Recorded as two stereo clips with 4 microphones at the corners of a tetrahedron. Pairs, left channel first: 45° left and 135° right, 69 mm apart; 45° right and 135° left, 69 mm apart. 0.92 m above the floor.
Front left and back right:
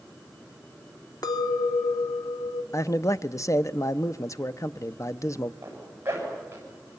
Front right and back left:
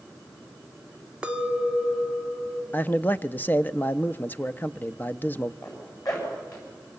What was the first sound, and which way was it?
A clink, 60° left.